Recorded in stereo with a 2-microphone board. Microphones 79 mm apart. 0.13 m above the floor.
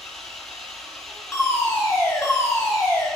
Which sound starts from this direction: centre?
An engine running, at 0.0 s.